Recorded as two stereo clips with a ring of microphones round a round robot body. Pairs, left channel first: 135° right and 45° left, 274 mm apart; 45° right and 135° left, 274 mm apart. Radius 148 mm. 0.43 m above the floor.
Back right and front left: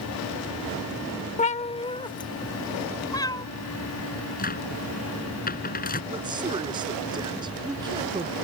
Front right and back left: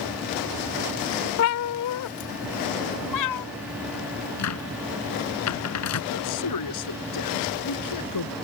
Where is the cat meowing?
75° right; by 3.5 s 60° right.